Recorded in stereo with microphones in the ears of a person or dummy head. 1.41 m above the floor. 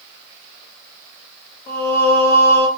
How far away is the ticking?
No ticking in this recording.